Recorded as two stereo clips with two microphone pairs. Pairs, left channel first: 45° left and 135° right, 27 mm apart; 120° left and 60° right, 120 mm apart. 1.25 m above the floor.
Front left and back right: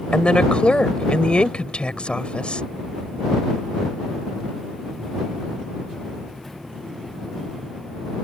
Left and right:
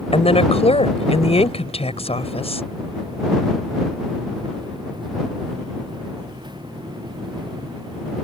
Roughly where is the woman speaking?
Left.